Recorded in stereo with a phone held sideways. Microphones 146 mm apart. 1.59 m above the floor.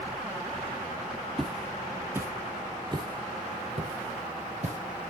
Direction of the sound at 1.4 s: Centre (ahead or behind).